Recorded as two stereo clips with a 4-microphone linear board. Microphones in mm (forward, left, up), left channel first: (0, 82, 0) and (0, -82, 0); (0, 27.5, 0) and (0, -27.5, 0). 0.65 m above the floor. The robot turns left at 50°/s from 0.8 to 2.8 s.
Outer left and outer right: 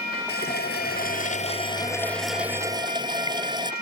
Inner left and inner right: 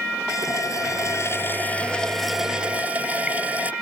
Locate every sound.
0.3 s a running tap: 75° left; by 3.7 s 25° right